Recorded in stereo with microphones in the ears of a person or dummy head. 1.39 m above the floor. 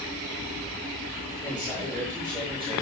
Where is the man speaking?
15° left (ahead or behind), 4 m; by 2.8 s 15° right (ahead or behind), 3 m.